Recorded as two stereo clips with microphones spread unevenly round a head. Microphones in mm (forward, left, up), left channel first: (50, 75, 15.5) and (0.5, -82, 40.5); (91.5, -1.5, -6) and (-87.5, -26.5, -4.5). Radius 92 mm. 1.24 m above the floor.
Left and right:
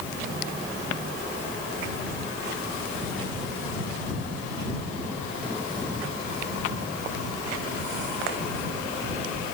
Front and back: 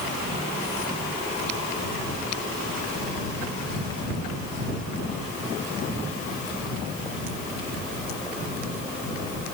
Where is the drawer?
No drawer in this recording.